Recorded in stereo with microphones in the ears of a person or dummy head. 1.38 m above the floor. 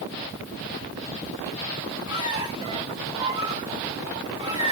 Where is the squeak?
25° right (ahead or behind), 4.5 m.